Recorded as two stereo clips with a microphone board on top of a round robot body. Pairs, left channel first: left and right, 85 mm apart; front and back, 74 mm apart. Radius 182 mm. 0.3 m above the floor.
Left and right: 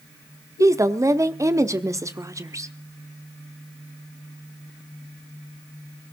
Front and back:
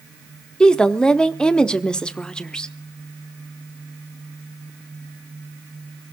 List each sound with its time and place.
0.6 s a woman speaking: 75° right, 1.4 m